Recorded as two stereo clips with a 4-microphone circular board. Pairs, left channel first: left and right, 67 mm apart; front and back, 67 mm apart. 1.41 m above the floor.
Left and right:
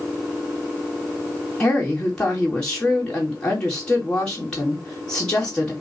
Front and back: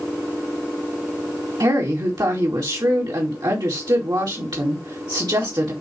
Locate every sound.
1.6 s a woman speaking: 165° left, 2.5 m